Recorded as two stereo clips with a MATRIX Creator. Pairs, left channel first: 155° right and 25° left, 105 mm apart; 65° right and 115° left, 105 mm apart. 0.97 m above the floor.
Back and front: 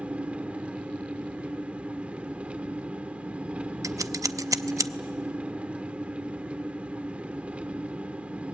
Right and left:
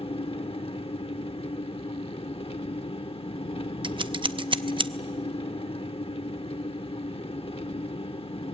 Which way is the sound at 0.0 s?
55° right.